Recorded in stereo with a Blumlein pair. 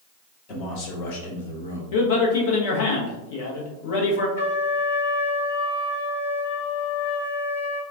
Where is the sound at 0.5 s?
35° left, 1.3 m; by 1.8 s 70° left, 1.2 m.